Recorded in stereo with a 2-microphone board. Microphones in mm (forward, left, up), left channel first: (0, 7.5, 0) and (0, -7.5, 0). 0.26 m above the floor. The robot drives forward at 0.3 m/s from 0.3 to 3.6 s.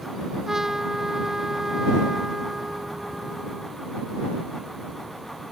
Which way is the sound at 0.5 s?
35° right (ahead or behind).